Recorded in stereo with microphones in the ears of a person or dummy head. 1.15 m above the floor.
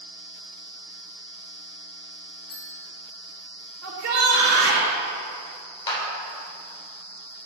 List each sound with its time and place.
2.5 s a bell: 65° left (ahead or behind), 1.2 m
3.8 s a shout: 75° right (ahead or behind), 2.0 m
5.9 s a clap: 20° left (ahead or behind), 2.5 m